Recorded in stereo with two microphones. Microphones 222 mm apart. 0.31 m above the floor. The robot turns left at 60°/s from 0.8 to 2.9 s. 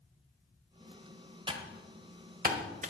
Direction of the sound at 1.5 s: 20° right (ahead or behind).